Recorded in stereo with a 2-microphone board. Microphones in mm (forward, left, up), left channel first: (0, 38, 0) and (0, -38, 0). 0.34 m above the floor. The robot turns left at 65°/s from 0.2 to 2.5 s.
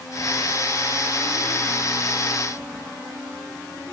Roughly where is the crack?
I don't hear a crack.